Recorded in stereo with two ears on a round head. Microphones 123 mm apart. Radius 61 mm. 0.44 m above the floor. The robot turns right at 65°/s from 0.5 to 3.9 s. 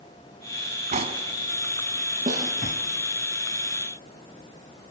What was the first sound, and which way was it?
Cutlery clinking, 50° right (ahead or behind).